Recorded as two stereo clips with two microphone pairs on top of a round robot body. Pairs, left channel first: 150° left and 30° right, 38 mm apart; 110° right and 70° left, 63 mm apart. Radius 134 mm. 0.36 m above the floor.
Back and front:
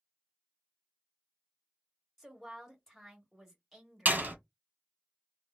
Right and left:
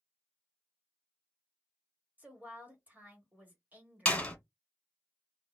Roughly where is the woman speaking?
Left.